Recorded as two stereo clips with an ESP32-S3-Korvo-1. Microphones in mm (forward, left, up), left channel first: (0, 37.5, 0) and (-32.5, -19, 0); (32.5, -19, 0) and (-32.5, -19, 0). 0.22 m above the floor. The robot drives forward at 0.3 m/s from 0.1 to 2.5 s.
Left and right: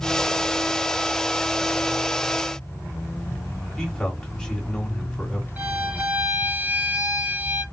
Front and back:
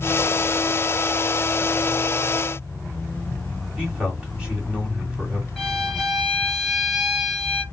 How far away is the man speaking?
About 1.8 m.